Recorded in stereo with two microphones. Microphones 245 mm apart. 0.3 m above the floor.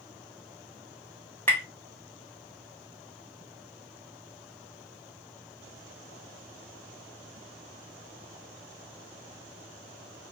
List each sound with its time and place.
1.5 s tapping: 5° left (ahead or behind), 1.3 m